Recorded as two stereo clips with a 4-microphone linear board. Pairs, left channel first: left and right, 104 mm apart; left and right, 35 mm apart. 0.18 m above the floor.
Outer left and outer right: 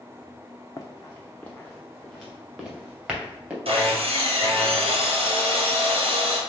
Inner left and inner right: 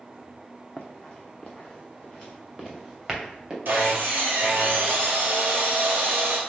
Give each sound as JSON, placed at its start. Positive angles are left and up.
{"t": 0.8, "sound": "running footsteps", "side_deg": 35, "distance_m": 0.8}
{"t": 3.6, "sound": "sawing", "side_deg": -60, "distance_m": 1.9}